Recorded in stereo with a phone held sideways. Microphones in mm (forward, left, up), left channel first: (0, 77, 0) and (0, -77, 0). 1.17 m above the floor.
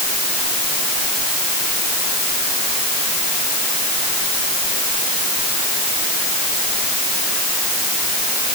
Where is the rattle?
I don't hear a rattle.